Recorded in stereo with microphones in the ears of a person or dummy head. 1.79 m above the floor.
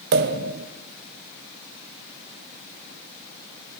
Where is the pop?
60° right (ahead or behind), 1.0 m.